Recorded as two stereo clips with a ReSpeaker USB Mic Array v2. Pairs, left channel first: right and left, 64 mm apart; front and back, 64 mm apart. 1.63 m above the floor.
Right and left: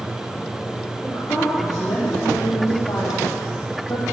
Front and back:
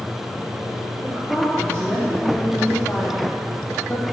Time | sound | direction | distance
1.0 | a woman speaking | 80° right | 5 m